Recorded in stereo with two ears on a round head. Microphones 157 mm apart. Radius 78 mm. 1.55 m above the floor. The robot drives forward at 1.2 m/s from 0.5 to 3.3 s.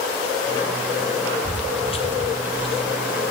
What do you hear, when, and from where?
1.4 s footsteps: 35° left (ahead or behind), 1.9 m